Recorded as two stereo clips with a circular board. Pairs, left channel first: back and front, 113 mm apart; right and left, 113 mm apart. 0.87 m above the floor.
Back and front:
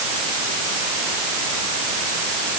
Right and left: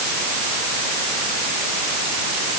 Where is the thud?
I don't hear a thud.